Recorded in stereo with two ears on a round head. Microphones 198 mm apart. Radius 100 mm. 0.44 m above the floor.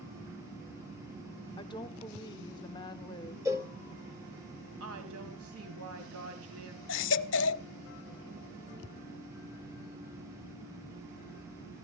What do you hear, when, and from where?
1.6 s a woman speaking: 20° left (ahead or behind), 0.9 m
3.5 s a cowbell: 15° right (ahead or behind), 1.6 m
4.8 s a woman speaking: 70° right (ahead or behind), 2.5 m
6.9 s a baby crying: 55° left (ahead or behind), 0.5 m